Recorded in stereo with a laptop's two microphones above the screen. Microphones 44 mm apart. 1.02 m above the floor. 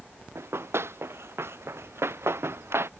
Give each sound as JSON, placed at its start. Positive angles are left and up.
{"t": 0.3, "sound": "running footsteps", "side_deg": -70}